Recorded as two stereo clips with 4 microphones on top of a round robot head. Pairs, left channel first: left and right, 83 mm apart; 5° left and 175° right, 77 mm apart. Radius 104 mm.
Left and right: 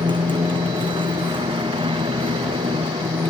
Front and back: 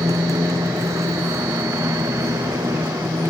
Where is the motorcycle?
120° right; by 3.3 s 115° right.